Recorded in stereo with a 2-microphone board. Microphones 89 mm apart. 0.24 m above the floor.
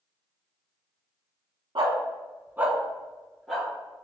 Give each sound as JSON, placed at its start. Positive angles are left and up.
{"t": 1.8, "sound": "a dog barking", "side_deg": -65, "distance_m": 0.6}